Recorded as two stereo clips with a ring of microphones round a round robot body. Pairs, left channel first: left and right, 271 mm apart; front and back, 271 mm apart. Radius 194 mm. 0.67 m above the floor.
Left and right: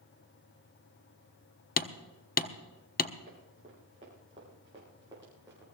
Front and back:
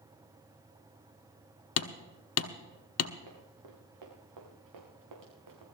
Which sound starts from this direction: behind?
Running footsteps, at 3.3 s.